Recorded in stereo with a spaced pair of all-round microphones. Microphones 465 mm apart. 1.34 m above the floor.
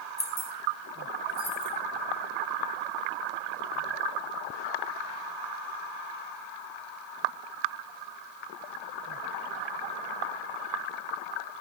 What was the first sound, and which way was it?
Keys jangling, 75° left (ahead or behind).